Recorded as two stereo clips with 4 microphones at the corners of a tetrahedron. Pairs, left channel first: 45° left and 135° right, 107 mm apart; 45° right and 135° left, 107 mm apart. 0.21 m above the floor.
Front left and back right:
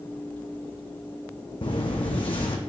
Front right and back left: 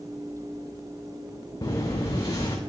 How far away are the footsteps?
About 0.6 m.